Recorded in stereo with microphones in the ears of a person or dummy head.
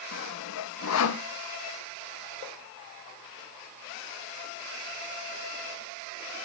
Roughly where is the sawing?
Left.